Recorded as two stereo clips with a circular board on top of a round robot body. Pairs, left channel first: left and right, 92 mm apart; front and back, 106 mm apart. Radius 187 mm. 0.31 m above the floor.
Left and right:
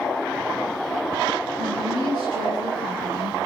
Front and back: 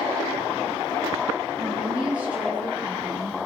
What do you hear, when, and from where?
1.6 s a woman speaking: 105° right, 8.5 m